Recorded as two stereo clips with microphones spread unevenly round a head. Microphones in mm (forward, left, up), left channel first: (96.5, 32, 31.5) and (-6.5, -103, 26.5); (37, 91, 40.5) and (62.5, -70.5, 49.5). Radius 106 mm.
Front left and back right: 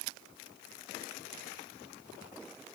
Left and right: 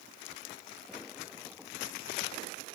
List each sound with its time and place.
Only background noise.